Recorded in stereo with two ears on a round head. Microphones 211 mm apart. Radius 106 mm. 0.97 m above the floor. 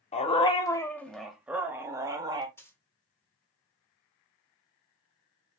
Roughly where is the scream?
I don't hear a scream.